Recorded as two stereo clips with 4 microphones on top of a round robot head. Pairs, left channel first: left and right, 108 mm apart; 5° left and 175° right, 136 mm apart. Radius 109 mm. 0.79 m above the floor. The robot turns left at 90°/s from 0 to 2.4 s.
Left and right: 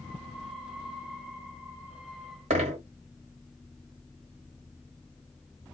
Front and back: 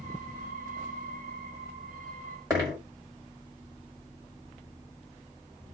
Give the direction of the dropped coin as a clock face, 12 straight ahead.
3 o'clock.